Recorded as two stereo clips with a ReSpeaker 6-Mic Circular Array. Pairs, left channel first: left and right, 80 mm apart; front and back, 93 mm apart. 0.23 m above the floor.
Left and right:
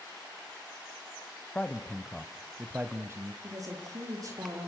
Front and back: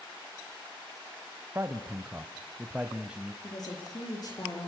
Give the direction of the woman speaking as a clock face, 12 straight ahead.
1 o'clock.